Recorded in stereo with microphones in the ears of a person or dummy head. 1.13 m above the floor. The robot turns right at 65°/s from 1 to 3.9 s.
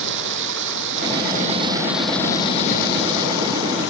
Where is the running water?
65° right; by 3.9 s 120° left.